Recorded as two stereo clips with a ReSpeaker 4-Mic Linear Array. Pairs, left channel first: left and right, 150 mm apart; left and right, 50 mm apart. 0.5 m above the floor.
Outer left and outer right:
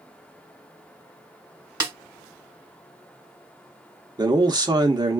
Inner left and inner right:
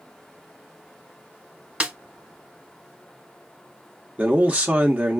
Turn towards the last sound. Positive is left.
turn(degrees=-25)  # may be behind; listen again after turning